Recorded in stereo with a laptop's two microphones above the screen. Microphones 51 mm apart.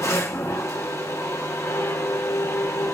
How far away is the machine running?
About 0.8 m.